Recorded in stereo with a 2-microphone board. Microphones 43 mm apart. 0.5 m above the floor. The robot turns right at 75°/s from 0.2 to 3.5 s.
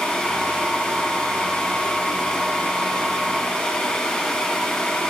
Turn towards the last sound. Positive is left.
No sound to turn to.